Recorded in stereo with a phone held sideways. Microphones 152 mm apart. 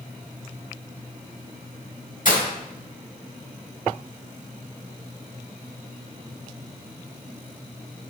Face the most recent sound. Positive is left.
turn(degrees=60)  # may be behind; listen again after turning